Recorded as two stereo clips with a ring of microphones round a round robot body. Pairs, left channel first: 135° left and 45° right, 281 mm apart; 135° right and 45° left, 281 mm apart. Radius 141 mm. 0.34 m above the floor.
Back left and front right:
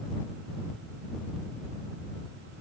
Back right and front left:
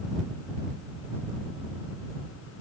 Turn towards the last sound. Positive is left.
No sound to turn to.